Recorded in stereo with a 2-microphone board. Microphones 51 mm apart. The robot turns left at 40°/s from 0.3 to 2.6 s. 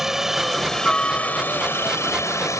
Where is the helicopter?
175° right; by 2.6 s 95° left.